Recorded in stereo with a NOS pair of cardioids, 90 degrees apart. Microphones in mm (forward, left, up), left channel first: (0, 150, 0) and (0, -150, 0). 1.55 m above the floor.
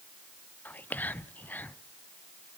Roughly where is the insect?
I don't hear an insect.